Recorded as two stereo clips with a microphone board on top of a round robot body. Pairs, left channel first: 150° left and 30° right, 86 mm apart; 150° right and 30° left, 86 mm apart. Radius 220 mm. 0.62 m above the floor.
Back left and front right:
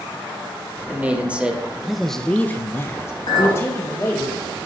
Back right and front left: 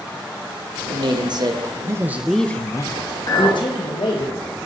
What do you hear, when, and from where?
0.9 s a man speaking: 40° left, 2.5 m; by 4.3 s 150° right, 3 m
3.3 s a clink: 175° left, 6.5 m